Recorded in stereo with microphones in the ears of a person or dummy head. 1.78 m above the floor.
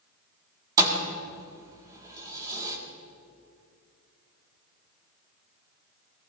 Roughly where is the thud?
Centre.